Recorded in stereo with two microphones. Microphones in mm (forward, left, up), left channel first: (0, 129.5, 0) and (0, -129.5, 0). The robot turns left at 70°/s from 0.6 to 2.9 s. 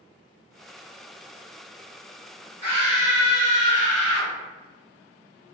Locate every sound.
2.6 s a scream: 45° left (ahead or behind), 1.5 m; by 4.3 s 30° left (ahead or behind), 1.5 m